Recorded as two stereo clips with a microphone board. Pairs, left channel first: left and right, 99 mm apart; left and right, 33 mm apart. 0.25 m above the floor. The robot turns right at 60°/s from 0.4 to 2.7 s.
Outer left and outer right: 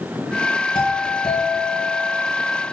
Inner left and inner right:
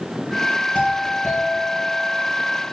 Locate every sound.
0.8 s a doorbell: 50° left, 3 m; by 2.2 s 140° left, 3 m